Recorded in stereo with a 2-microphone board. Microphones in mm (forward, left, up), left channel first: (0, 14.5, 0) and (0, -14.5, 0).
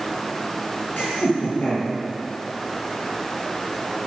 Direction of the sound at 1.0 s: 70° left (ahead or behind).